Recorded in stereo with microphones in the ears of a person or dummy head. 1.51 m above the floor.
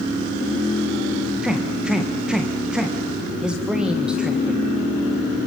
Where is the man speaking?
5° right (ahead or behind), 1.3 m.